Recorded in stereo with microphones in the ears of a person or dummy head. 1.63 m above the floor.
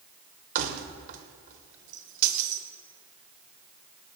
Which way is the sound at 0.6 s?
45° right (ahead or behind).